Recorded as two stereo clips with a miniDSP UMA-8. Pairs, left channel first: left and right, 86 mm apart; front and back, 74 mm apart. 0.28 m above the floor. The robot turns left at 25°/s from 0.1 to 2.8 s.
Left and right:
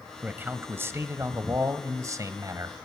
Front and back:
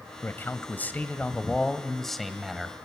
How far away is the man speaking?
About 1.1 m.